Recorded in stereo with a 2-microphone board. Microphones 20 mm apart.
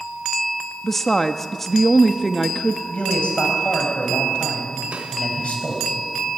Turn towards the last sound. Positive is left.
turn(degrees=-80)